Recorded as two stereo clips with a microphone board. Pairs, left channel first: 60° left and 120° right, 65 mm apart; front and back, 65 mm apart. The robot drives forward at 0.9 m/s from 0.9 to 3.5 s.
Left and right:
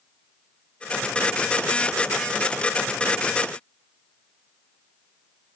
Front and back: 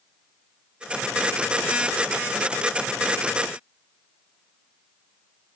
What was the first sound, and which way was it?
Only background noise.